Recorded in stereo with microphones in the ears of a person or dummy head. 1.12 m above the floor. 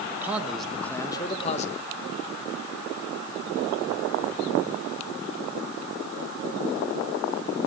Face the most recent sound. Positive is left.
turn(degrees=40)  # may be behind; listen again after turning